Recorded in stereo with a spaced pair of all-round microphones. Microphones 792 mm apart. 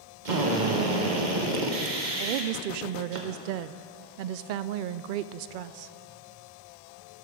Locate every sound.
0.2 s a drill: 65° right (ahead or behind), 1.1 m
2.2 s a woman speaking: 90° right, 0.6 m